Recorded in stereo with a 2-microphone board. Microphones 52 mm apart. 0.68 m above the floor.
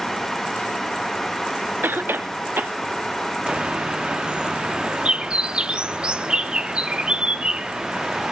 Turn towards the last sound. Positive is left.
turn(degrees=-20)  # may be behind; listen again after turning